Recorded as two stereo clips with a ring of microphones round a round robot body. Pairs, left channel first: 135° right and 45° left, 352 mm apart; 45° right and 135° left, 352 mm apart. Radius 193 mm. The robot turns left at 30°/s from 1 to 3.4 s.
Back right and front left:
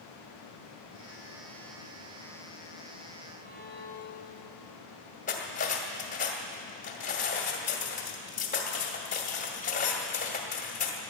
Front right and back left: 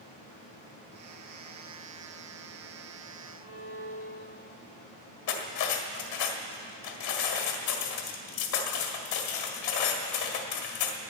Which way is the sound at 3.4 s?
5° left.